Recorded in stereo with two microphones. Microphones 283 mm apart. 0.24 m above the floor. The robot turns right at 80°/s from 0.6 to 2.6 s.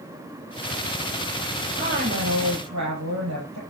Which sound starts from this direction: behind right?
A woman speaking, at 1.8 s.